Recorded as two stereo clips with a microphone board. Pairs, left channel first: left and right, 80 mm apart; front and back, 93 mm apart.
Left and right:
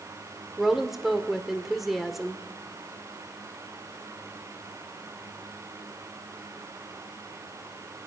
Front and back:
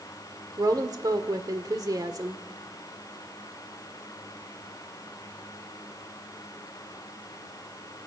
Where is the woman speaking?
175° right, 1.7 m.